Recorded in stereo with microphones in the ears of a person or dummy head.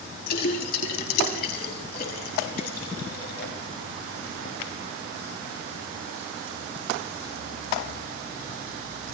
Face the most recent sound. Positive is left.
turn(degrees=60)  # may be behind; listen again after turning